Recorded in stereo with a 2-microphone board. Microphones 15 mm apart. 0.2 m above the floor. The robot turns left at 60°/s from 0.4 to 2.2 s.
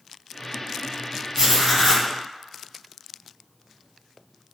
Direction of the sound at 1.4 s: 140° right.